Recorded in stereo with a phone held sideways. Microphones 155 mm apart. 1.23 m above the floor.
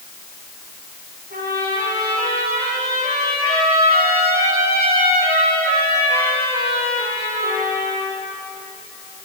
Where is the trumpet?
80° right, 9.5 m.